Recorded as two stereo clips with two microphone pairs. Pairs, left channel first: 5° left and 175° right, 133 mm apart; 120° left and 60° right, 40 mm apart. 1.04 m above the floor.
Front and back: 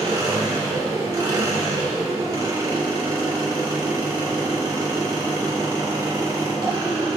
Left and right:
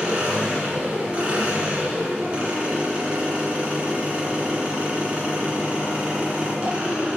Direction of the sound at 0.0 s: 115° right.